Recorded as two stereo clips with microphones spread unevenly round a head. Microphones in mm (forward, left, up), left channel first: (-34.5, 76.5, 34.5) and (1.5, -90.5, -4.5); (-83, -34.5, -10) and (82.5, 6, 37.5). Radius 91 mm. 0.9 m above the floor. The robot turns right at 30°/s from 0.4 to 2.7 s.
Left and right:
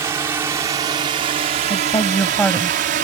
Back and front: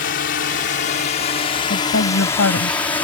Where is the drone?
145° right; by 3.0 s 95° right.